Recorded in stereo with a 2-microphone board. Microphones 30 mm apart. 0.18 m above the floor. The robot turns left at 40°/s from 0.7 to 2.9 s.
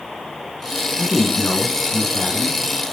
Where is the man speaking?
75° left, 1.8 m; by 2.6 s 5° left, 1.8 m.